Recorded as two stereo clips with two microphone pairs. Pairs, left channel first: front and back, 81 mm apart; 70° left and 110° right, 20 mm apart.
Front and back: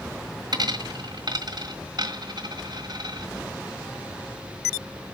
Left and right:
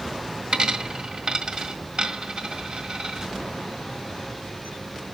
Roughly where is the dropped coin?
Behind right.